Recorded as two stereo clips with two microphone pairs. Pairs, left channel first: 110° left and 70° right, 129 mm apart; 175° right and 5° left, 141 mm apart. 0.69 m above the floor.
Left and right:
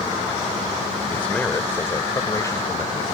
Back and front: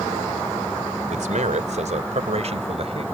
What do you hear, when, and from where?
1.1 s a man speaking: 30° left; by 3.0 s 50° left